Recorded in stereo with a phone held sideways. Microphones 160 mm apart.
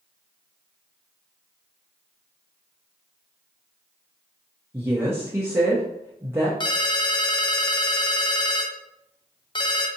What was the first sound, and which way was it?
A woman speaking, 15° right (ahead or behind).